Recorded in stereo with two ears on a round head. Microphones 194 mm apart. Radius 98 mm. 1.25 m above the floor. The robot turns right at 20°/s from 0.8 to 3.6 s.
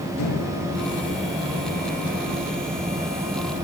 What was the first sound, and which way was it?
A microwave, 85° left.